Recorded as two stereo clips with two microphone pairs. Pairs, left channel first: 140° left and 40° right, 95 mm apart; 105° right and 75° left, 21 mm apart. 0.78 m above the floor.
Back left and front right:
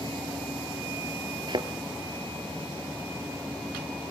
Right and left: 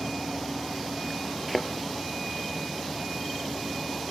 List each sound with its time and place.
1.5 s a thud: 15° right, 1.3 m